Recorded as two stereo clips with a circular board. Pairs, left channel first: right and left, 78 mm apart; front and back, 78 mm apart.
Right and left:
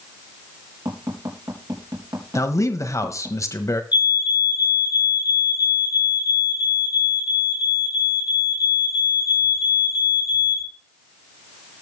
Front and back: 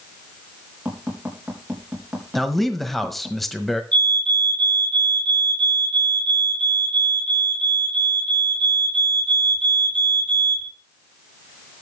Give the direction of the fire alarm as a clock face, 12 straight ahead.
2 o'clock.